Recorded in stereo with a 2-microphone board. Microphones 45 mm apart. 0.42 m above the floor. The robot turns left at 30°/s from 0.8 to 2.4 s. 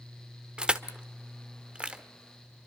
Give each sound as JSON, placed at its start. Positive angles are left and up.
{"t": 0.6, "sound": "crushing", "side_deg": -20, "distance_m": 1.2}